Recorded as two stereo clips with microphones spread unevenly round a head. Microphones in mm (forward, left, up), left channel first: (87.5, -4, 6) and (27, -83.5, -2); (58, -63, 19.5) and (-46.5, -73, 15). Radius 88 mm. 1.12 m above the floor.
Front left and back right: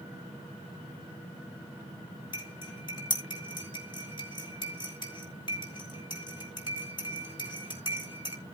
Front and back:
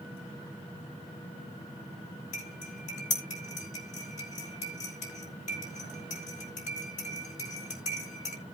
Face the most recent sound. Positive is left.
turn(degrees=5)